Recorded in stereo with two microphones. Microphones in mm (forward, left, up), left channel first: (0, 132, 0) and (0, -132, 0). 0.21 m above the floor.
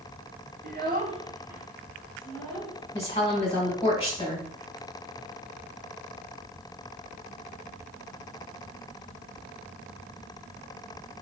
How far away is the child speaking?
About 0.7 m.